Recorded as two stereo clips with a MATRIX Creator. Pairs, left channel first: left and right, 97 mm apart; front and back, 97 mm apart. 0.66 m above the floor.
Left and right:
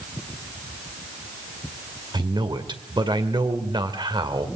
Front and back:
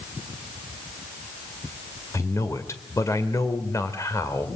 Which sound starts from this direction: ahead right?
A man speaking, at 2.1 s.